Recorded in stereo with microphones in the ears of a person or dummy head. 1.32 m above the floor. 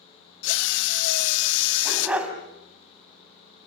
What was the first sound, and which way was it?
A drill, 70° left (ahead or behind).